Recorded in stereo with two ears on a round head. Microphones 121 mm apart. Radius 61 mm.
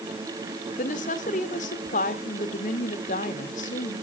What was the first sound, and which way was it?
A woman speaking, 65° left (ahead or behind).